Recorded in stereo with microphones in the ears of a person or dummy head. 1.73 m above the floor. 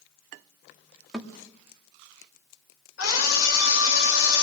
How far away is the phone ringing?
No phone ringing in this recording.